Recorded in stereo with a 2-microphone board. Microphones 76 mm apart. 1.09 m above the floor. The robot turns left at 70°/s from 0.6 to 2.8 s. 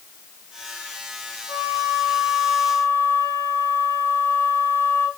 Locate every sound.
1.5 s a flute: 130° right, 3.5 m; by 5.1 s 140° left, 3.5 m